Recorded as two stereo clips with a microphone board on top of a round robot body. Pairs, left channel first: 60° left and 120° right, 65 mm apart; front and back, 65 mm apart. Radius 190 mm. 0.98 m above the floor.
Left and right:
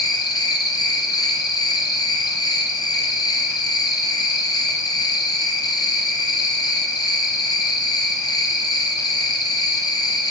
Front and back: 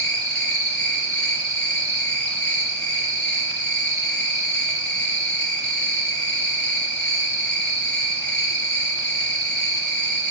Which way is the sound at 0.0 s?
75° left.